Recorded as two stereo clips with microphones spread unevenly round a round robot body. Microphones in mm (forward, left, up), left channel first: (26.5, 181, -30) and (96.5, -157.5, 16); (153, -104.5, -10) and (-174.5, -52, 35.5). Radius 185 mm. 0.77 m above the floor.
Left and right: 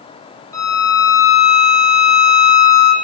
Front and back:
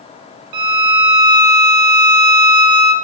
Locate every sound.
0.5 s a violin: 175° right, 1.1 m